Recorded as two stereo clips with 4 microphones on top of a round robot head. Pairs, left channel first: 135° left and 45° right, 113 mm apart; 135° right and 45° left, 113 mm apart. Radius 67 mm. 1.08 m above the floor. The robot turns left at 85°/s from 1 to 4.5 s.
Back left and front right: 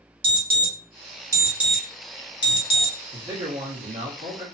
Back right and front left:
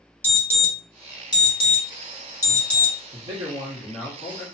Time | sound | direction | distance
0.2 | an alarm | 65° right | 1.2 m
3.1 | a man speaking | 25° left | 1.2 m